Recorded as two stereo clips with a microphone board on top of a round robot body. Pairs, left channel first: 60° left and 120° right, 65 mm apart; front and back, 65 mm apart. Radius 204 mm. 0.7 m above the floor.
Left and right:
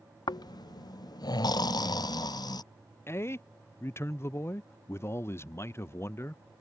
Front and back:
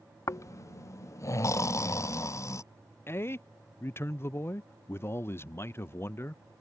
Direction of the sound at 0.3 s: 45° left.